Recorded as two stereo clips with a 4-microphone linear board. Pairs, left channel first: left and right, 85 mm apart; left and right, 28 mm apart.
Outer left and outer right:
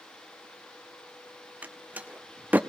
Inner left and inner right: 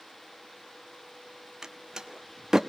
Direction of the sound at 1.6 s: 20° right (ahead or behind).